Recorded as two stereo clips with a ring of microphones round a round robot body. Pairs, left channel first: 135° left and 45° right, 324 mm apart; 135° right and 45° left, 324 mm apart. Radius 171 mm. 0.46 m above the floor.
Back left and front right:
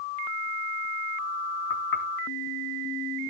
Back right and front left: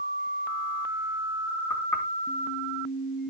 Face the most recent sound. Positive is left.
turn(degrees=145)